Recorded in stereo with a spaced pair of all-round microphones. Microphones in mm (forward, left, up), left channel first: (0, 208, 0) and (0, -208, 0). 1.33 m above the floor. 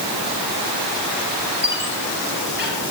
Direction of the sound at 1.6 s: 25° right (ahead or behind).